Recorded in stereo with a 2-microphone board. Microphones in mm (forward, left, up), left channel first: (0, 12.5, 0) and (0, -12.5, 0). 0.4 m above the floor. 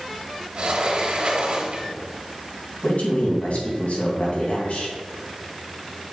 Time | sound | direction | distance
0.6 | a sliding door | 45° right (ahead or behind) | 1.5 m
2.8 | a man speaking | 65° left (ahead or behind) | 3 m